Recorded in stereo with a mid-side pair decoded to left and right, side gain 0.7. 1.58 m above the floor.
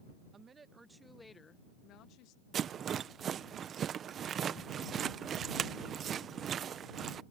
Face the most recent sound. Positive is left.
turn(degrees=-35)